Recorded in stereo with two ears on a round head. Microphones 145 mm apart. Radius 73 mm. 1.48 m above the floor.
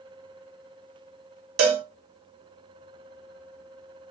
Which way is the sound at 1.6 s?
65° right (ahead or behind).